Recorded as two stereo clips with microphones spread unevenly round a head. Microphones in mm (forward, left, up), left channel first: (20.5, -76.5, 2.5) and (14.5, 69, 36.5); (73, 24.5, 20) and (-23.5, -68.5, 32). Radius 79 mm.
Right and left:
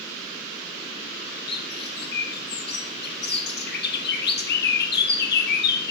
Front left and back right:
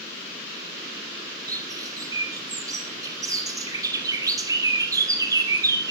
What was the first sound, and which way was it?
A bird, 70° right.